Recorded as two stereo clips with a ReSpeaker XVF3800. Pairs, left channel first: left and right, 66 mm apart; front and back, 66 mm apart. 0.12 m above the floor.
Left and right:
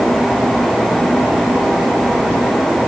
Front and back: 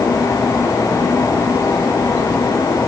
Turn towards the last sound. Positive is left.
No sound to turn to.